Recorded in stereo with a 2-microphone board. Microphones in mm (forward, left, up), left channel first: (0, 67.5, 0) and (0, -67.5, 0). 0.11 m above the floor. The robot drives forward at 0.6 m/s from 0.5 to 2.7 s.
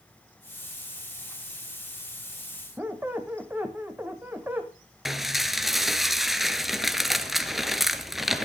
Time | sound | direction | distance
2.8 | a squeak | 15° right (ahead or behind) | 1.5 m
5.0 | dishes clattering | centre (ahead or behind) | 1.1 m